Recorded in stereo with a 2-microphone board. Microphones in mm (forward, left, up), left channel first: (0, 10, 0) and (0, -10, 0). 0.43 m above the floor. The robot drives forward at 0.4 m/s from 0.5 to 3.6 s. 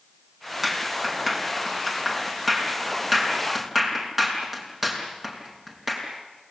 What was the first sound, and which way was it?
A clap, 15° right (ahead or behind).